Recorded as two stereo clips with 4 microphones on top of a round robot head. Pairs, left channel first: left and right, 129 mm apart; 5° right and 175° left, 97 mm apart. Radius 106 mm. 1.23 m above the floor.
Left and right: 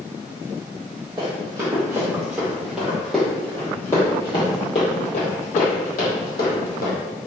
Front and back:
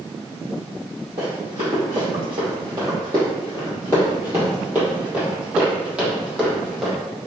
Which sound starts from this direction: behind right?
Running footsteps, at 1.2 s.